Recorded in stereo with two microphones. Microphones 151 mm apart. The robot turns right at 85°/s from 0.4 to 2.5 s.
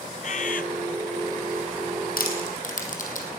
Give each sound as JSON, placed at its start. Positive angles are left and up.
{"t": 0.2, "sound": "a bird", "side_deg": 55, "distance_m": 0.6}
{"t": 2.2, "sound": "crushing", "side_deg": 70, "distance_m": 3.0}